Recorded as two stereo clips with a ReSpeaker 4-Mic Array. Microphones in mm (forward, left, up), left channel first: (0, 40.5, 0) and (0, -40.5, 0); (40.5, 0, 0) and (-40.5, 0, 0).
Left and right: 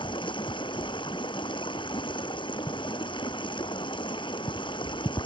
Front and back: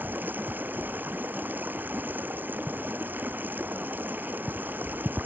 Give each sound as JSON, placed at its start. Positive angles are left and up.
{"t": 0.0, "sound": "running water", "azimuth_deg": 110}